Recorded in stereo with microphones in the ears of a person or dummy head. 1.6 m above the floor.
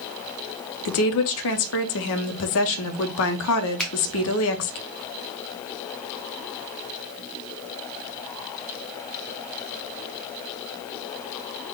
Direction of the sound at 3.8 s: 5° left (ahead or behind).